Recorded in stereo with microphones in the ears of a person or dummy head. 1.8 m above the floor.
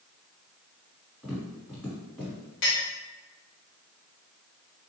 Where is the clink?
50° left (ahead or behind), 1.2 m.